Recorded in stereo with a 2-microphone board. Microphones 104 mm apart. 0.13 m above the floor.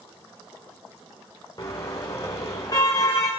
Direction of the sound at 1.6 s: 40° left (ahead or behind).